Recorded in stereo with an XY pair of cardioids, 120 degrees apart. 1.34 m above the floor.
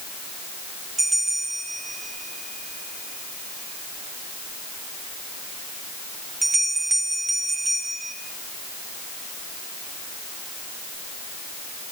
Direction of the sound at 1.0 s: 20° right.